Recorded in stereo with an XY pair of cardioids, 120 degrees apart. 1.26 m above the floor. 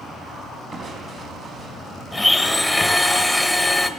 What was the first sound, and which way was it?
Crushing, 50° right.